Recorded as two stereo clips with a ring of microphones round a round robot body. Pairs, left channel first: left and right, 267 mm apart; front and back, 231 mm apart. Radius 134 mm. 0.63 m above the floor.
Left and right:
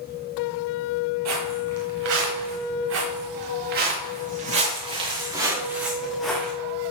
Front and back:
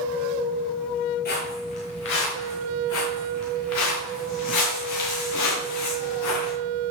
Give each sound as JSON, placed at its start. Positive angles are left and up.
{"t": 1.2, "sound": "footsteps", "azimuth_deg": -55, "distance_m": 7.0}